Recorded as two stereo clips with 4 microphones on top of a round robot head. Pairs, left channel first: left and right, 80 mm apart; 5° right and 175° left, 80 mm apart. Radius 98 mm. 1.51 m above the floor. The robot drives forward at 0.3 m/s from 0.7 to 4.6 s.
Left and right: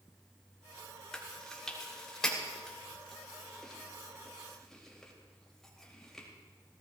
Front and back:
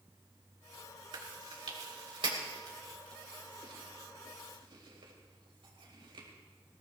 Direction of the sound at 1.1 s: 175° left.